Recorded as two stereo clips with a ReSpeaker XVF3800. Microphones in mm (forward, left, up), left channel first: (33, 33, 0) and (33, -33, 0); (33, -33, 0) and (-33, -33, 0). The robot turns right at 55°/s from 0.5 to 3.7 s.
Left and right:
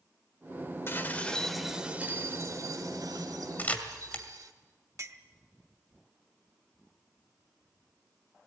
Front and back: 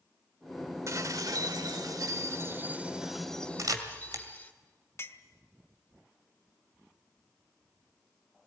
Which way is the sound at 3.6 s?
150° left.